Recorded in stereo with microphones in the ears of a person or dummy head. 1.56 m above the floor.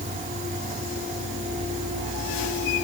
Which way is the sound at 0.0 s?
40° right (ahead or behind).